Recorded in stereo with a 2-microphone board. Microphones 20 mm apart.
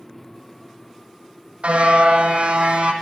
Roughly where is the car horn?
Right.